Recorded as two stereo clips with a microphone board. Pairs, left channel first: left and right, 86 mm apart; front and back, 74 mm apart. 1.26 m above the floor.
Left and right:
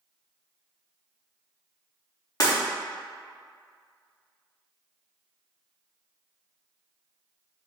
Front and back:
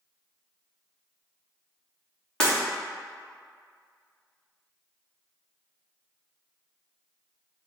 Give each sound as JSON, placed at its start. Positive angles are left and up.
{"t": 2.4, "sound": "breaking glass", "azimuth_deg": 70, "distance_m": 0.9}